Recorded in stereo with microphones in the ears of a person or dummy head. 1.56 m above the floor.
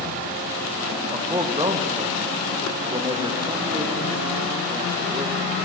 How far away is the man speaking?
About 1.0 m.